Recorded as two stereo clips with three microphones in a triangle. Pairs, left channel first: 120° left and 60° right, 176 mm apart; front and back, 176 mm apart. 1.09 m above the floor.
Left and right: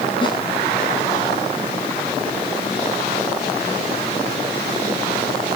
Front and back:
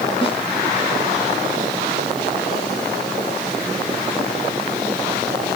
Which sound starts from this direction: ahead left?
A snare drum, at 0.2 s.